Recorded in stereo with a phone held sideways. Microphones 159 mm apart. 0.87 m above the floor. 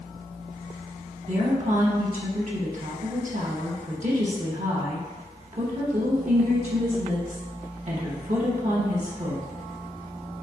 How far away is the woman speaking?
About 0.8 m.